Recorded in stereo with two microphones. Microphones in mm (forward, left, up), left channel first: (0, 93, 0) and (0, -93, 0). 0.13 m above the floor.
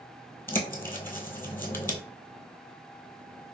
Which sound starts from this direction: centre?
A bird, at 0.5 s.